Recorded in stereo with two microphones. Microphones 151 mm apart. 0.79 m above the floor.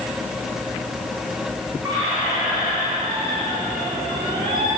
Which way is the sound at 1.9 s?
30° right (ahead or behind).